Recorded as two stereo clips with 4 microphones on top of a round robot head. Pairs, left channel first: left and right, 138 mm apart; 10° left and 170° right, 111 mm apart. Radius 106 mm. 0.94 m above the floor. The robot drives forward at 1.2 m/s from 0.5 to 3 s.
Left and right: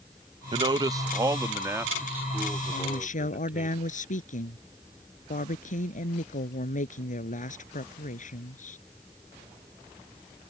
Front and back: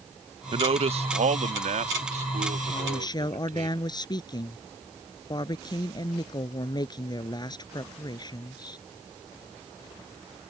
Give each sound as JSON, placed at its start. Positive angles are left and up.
{"t": 0.5, "sound": "a man speaking", "azimuth_deg": -140}
{"t": 2.7, "sound": "a woman speaking", "azimuth_deg": 60}